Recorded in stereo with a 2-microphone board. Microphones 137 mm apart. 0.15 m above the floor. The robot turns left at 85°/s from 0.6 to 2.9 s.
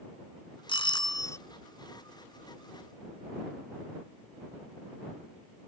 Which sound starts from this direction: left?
A doorbell, at 0.7 s.